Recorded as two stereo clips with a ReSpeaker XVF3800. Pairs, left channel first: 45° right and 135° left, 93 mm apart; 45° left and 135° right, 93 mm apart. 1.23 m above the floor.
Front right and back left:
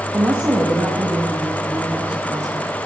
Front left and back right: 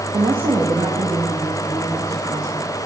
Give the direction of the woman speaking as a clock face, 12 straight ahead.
5 o'clock.